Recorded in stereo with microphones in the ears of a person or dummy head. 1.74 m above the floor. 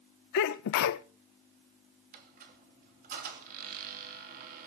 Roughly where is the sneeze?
Left.